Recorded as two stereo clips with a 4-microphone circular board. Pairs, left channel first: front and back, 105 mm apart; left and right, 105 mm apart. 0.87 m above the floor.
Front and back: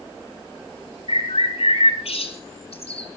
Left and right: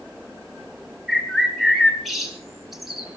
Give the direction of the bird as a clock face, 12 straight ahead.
12 o'clock.